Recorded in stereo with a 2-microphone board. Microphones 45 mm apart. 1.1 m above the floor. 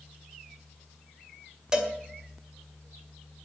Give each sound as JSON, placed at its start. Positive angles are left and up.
{"t": 1.7, "sound": "a cowbell", "side_deg": -15, "distance_m": 2.0}